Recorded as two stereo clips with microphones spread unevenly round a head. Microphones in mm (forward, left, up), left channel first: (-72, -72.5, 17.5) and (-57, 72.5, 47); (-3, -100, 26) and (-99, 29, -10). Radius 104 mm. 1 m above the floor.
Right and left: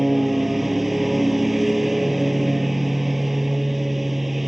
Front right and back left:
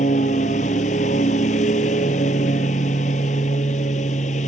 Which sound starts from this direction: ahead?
A lawn mower, at 0.0 s.